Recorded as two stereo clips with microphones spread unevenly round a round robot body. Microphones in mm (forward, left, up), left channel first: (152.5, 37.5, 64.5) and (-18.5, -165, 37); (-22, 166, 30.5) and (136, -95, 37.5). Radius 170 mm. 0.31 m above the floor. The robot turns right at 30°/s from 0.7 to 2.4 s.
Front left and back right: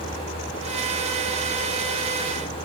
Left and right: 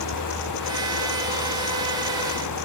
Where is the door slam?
No door slam in this recording.